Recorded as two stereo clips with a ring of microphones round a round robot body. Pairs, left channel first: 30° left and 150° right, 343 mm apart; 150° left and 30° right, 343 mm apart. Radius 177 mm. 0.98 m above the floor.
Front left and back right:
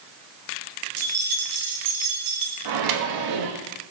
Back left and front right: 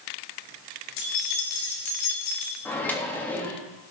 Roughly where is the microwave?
Behind right.